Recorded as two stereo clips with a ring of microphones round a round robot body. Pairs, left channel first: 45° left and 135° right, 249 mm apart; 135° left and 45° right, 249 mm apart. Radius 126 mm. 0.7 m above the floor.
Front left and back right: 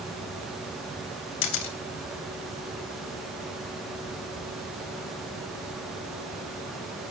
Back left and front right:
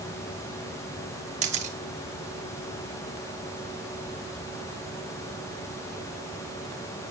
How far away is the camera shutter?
About 2 m.